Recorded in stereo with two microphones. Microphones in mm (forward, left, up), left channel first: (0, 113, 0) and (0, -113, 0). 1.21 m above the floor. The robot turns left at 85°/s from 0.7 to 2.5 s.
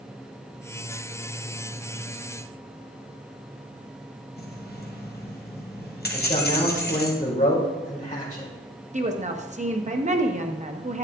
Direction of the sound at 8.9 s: 30° right (ahead or behind).